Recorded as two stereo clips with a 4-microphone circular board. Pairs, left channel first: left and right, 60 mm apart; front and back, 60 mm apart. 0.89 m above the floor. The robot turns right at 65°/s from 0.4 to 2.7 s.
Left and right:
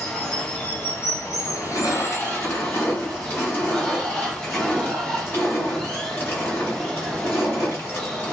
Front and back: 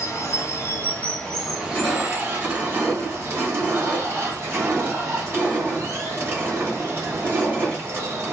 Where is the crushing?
55° left, 1.5 m; by 8.3 s 135° left, 1.5 m.